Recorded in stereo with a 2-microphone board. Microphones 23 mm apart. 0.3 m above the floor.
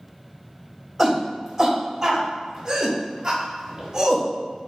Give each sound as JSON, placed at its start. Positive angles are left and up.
{"t": 1.0, "sound": "a shout", "side_deg": 0, "distance_m": 1.2}